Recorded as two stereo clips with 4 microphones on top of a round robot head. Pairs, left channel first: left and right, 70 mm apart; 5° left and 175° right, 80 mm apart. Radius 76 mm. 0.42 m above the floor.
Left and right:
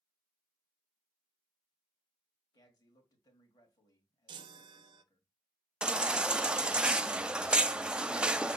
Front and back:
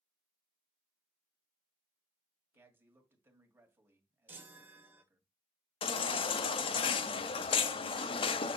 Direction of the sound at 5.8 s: 15° right.